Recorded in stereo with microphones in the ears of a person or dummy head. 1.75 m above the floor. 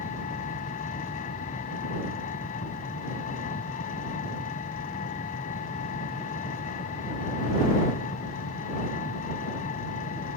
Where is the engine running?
40° left (ahead or behind).